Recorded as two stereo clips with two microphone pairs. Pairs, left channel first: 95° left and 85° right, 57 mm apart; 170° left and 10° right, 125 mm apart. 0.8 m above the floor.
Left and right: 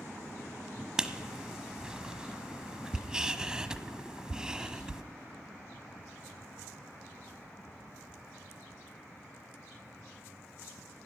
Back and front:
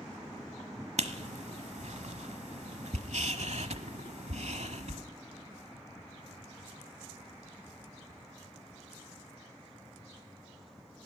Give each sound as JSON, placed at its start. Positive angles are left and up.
{"t": 1.0, "sound": "writing", "azimuth_deg": -10, "distance_m": 1.1}